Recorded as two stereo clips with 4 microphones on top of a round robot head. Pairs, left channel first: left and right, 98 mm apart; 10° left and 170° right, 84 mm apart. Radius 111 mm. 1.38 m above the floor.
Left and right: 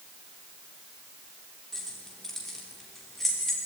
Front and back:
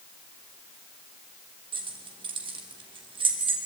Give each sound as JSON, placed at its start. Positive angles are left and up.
{"t": 1.7, "sound": "keys jangling", "azimuth_deg": 175, "distance_m": 3.0}